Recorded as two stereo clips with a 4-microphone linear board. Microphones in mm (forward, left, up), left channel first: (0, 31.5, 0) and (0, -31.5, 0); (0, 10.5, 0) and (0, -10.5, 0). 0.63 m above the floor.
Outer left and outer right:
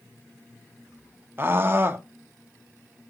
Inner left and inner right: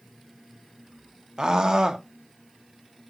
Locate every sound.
1.4 s a scream: 35° right (ahead or behind), 1.1 m